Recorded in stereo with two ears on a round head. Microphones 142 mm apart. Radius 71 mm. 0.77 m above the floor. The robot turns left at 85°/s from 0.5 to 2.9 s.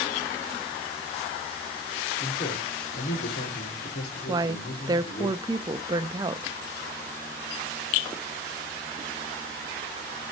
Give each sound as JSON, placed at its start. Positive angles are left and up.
{"t": 2.2, "sound": "a man speaking", "azimuth_deg": 155, "distance_m": 2.5}
{"t": 4.3, "sound": "a woman speaking", "side_deg": -25, "distance_m": 0.5}